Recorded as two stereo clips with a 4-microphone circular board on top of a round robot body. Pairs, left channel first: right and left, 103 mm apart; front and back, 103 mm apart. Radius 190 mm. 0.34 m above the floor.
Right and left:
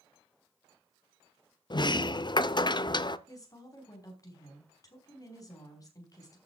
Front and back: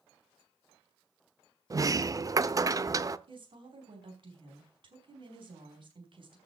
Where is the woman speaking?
145° right, 5 m.